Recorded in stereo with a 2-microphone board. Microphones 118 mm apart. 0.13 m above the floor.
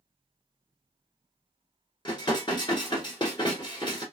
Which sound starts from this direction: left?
Dishes clattering, at 2.0 s.